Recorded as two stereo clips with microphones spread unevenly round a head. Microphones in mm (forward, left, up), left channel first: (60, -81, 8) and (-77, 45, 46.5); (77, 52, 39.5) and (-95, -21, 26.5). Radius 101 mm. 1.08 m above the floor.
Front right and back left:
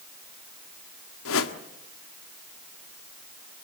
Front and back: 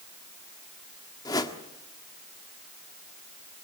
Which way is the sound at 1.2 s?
50° right.